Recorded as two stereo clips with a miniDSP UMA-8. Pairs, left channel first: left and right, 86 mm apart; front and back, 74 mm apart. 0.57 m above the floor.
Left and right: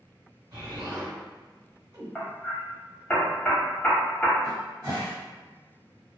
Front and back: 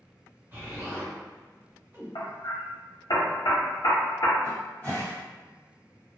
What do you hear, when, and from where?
0.5 s an explosion: 120° right, 1.7 m
2.1 s hammering: 10° left, 0.8 m
4.4 s a cupboard door: 65° right, 1.5 m